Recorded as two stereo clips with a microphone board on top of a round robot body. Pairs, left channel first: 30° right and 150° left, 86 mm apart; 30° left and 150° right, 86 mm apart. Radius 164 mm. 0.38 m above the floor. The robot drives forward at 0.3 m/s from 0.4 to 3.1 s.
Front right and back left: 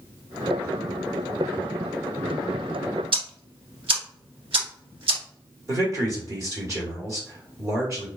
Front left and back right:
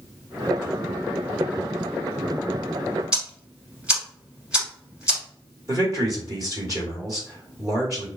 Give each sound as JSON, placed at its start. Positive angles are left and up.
{"t": 3.1, "sound": "ticking", "azimuth_deg": 130, "distance_m": 0.8}
{"t": 5.7, "sound": "a man speaking", "azimuth_deg": -175, "distance_m": 1.8}